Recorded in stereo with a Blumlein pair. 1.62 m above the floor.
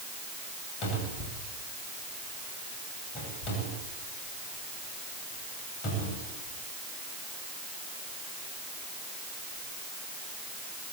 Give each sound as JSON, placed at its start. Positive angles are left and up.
{"t": 0.8, "sound": "a cupboard door", "azimuth_deg": 30, "distance_m": 9.5}